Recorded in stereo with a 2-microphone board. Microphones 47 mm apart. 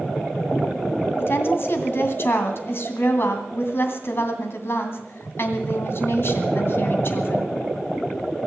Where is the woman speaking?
55° left (ahead or behind), 2.5 m.